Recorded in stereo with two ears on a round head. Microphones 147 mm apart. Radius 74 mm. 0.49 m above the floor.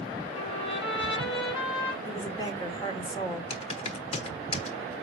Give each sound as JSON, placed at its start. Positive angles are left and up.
{"t": 0.3, "sound": "a trumpet", "side_deg": 35, "distance_m": 4.0}
{"t": 2.0, "sound": "a woman speaking", "side_deg": 25, "distance_m": 1.8}
{"t": 3.5, "sound": "typing on a keyboard", "side_deg": 40, "distance_m": 1.1}